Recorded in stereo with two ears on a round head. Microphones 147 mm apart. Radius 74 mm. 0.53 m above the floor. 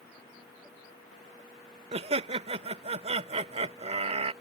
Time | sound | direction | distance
1.9 | laughter | 40° right (ahead or behind) | ?